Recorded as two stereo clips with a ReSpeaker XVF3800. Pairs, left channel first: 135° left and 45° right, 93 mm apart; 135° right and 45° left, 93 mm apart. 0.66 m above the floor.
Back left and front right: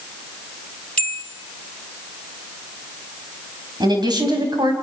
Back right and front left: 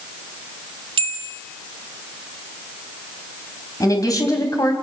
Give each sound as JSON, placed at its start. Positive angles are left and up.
{"t": 1.0, "sound": "a bell", "azimuth_deg": 60, "distance_m": 1.7}
{"t": 3.8, "sound": "a woman speaking", "azimuth_deg": -85, "distance_m": 4.5}